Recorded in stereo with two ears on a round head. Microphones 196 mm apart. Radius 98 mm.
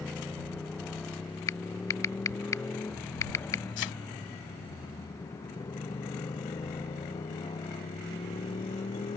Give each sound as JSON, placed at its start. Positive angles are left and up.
{"t": 0.0, "sound": "a motorcycle", "side_deg": 0}
{"t": 1.5, "sound": "typing on a keyboard", "side_deg": 15}
{"t": 3.8, "sound": "a thud", "side_deg": 60}